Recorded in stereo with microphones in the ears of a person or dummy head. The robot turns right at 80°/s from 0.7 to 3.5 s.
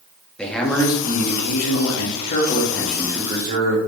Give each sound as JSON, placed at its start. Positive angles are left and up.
{"t": 0.4, "sound": "a man speaking", "azimuth_deg": 5, "distance_m": 2.0}